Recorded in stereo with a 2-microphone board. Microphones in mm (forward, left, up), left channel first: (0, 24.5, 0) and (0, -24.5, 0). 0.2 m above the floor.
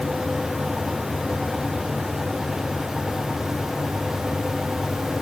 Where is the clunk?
I don't hear a clunk.